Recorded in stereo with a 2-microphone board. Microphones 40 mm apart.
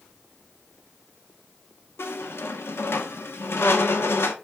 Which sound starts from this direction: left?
A squeak, at 2.0 s.